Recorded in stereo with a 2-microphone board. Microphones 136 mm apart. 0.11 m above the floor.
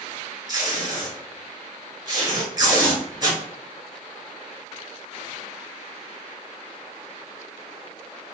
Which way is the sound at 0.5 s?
30° right (ahead or behind).